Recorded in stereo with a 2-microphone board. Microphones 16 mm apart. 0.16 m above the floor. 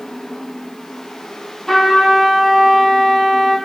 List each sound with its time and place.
1.7 s a trumpet: 25° left (ahead or behind), 2.5 m